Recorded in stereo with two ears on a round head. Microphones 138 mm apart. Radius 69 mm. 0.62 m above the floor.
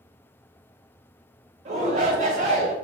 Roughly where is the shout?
Right.